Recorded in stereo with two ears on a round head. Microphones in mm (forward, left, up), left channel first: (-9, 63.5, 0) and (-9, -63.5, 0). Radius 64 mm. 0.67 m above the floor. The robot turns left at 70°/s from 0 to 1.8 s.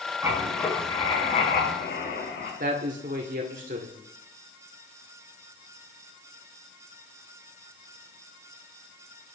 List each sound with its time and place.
0.2 s writing: 160° right, 7 m; by 2.5 s 90° left, 7 m
2.6 s a man speaking: 65° right (ahead or behind), 1.5 m